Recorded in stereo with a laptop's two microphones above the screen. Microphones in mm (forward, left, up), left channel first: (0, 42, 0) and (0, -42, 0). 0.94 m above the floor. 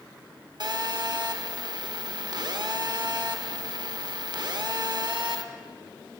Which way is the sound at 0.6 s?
55° right (ahead or behind).